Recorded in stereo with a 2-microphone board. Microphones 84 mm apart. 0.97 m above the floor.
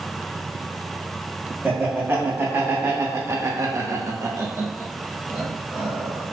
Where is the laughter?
20° right (ahead or behind), 1.4 m; by 6.2 s 10° right (ahead or behind), 1.3 m.